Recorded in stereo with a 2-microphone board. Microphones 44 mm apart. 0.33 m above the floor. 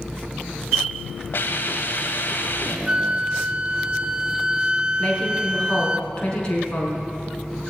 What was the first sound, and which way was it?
A hiss, 55° left (ahead or behind).